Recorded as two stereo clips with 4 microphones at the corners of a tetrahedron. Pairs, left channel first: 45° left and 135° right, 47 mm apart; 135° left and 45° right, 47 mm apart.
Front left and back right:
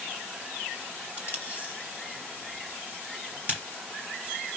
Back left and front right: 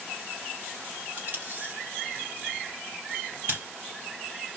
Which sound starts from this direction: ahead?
Tape being pulled, at 1.2 s.